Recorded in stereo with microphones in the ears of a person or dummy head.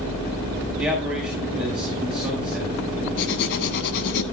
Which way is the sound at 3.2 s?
65° left (ahead or behind).